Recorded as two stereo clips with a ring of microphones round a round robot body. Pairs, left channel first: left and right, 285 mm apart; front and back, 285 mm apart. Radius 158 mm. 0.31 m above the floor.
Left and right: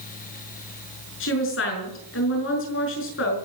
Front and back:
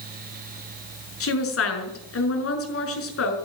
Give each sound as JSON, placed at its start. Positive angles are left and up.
{"t": 1.2, "sound": "a woman speaking", "azimuth_deg": 40, "distance_m": 5.5}